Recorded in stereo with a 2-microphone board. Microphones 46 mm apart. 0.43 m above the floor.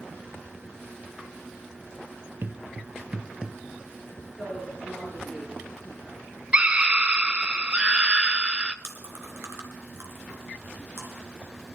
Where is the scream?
25° right (ahead or behind), 0.9 m.